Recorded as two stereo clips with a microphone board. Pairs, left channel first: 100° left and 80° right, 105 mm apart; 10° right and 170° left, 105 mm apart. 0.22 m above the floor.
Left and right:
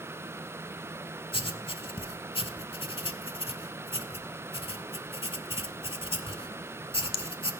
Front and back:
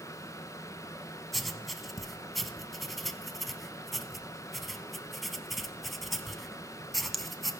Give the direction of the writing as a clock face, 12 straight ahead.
9 o'clock.